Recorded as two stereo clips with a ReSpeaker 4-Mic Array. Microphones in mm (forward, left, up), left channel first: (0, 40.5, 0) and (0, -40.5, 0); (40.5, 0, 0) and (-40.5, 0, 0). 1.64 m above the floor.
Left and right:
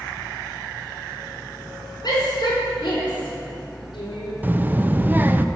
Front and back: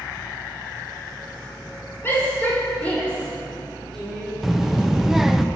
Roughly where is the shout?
Ahead left.